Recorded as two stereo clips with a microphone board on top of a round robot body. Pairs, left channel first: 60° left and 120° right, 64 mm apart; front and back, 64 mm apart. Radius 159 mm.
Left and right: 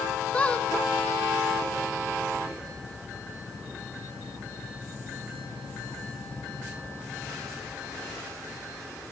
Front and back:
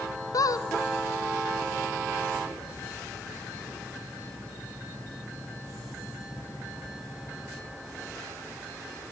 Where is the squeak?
10° right, 0.7 m.